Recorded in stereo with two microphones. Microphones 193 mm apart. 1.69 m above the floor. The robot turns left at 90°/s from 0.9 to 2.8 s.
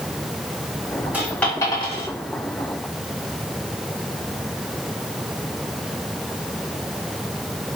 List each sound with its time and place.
1.1 s a dropped coin: 10° right (ahead or behind), 1.8 m; by 2.1 s 35° left (ahead or behind), 1.8 m